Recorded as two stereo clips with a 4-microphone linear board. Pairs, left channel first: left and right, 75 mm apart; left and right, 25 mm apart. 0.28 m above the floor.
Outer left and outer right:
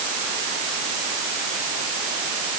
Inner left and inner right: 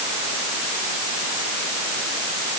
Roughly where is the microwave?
I don't hear a microwave.